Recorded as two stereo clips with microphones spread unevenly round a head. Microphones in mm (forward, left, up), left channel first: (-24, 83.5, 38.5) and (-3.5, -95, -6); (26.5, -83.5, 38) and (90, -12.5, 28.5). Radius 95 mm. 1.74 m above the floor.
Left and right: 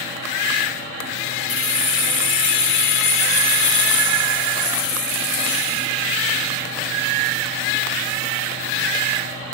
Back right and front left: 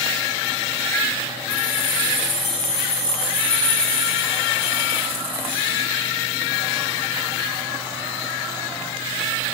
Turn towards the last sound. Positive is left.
turn(degrees=125)